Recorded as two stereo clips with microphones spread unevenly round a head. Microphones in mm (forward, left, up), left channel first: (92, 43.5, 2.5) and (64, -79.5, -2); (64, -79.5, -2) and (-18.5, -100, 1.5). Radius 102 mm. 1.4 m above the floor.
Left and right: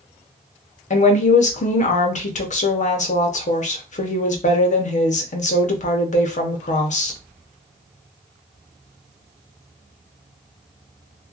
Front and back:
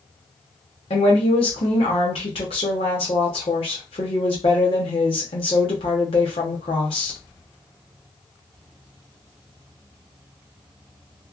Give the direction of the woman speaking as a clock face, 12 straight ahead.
10 o'clock.